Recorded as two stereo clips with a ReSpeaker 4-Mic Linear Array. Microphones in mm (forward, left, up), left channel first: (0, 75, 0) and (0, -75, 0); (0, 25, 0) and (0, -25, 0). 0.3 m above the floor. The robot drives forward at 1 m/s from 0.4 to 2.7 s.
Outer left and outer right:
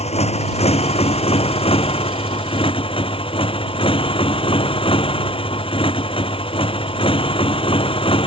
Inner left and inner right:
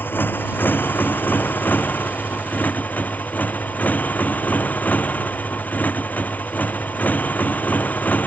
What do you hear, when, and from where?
0.0 s a motorcycle: 45° left (ahead or behind); by 8.3 s 35° left (ahead or behind)